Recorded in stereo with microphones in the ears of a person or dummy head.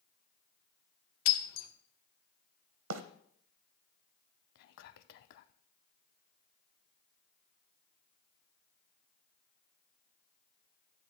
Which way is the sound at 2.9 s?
75° right (ahead or behind).